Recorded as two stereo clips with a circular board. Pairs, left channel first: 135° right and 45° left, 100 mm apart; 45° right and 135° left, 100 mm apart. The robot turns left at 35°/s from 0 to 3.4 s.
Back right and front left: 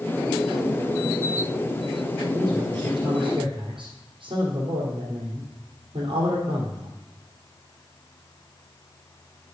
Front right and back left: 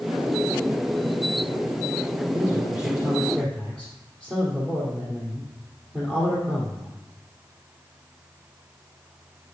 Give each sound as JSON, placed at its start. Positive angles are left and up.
{"t": 2.3, "sound": "a man speaking", "azimuth_deg": 90, "distance_m": 3.0}